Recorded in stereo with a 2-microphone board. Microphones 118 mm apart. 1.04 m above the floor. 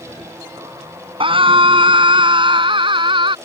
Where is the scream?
45° right (ahead or behind).